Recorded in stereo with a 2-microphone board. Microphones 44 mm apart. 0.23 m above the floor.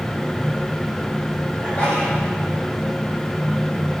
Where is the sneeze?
35° left (ahead or behind), 5 m.